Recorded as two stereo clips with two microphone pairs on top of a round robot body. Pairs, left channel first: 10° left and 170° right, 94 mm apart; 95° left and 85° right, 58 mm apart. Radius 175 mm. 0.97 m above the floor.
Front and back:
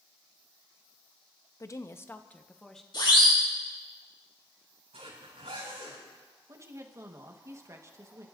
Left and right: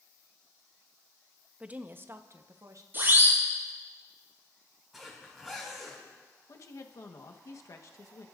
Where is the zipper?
175° right, 5.5 m.